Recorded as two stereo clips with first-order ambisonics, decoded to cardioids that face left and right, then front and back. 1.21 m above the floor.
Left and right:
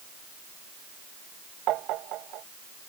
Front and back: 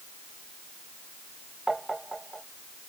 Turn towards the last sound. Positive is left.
turn(degrees=-100)